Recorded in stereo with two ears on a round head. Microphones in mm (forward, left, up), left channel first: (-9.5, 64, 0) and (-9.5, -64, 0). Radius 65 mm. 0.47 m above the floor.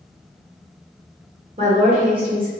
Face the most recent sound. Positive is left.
turn(degrees=-40)  # may be behind; listen again after turning